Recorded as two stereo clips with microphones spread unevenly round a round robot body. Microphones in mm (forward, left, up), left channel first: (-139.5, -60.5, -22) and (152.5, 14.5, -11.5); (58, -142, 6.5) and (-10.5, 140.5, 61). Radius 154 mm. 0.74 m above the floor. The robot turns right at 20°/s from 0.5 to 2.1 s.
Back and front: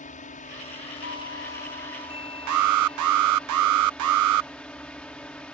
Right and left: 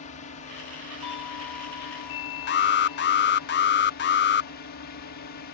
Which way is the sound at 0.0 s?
110° right.